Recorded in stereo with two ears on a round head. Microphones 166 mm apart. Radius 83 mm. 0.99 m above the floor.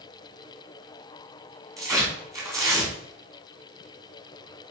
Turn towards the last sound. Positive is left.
turn(degrees=-20)  # may be behind; listen again after turning